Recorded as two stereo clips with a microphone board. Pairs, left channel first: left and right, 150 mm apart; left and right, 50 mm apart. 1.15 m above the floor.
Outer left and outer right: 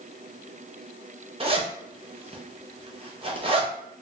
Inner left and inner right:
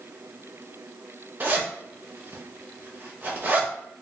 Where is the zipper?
35° right (ahead or behind), 0.5 m.